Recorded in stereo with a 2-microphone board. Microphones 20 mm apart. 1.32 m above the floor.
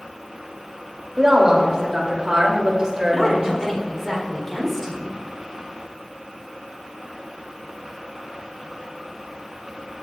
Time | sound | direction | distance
1.2 | a woman speaking | 35° right (ahead or behind) | 3 m
3.1 | a woman speaking | 15° left (ahead or behind) | 3.5 m